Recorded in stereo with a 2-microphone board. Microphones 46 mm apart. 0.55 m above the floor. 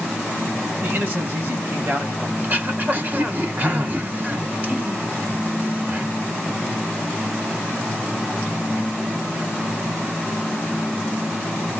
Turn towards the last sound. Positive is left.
turn(degrees=-40)  # may be behind; listen again after turning